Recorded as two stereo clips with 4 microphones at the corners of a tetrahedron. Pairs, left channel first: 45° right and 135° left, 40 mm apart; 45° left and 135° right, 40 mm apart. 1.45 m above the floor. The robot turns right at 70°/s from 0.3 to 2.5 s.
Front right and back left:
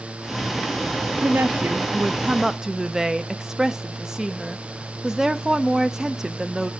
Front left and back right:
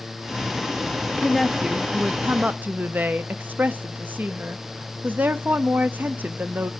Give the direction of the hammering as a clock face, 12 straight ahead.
I don't hear hammering.